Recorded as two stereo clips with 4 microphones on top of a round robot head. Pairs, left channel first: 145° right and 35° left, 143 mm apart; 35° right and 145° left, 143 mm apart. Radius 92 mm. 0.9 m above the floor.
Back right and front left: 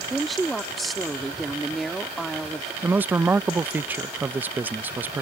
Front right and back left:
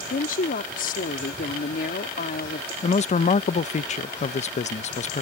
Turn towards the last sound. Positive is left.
turn(degrees=-40)